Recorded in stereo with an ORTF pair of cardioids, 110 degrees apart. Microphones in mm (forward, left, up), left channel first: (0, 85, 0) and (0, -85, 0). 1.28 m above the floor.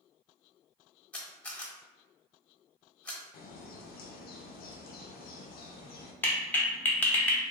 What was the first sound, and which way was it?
A camera shutter, 10° left.